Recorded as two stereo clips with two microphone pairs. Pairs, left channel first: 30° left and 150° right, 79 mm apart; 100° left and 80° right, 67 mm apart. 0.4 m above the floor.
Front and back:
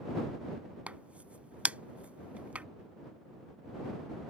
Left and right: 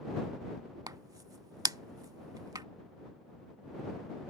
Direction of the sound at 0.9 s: 75° right.